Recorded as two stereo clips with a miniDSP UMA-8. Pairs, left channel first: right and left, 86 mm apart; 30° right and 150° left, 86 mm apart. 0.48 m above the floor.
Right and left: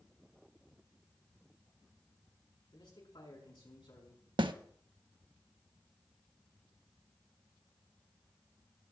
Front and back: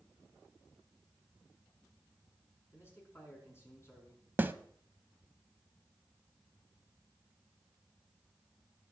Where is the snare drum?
85° left, 0.6 m.